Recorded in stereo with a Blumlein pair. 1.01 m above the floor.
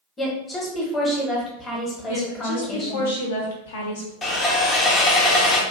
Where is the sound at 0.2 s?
15° left, 1.0 m.